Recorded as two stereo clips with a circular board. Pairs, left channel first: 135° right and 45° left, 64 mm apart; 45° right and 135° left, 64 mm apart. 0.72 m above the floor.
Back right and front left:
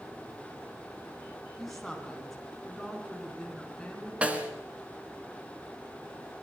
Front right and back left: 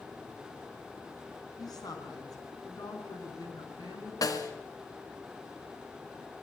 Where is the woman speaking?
50° right, 6 m; by 4.1 s 55° right, 8.5 m.